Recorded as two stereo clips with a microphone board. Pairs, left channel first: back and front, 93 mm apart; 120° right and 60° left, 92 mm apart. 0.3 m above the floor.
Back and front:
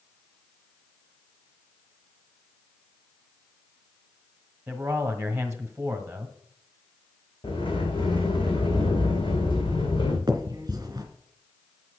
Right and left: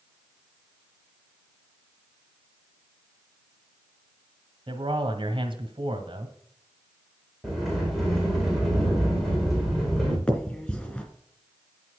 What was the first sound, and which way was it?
A man speaking, 75° left.